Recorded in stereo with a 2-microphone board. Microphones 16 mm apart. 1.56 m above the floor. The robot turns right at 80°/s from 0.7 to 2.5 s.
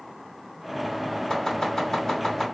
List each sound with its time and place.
1.3 s chopping: 35° left (ahead or behind), 1.7 m; by 2.5 s 25° left (ahead or behind), 1.7 m